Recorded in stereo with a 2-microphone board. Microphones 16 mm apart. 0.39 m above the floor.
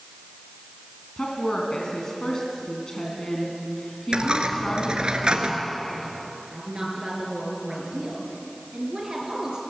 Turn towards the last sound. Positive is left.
turn(degrees=-35)  # may be behind; listen again after turning